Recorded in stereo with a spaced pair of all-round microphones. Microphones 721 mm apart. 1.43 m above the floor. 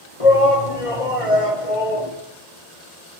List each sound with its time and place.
0.2 s a shout: 45° left (ahead or behind), 3 m